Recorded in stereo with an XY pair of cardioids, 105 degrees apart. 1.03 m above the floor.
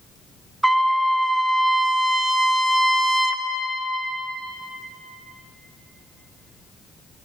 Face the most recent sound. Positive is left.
turn(degrees=-15)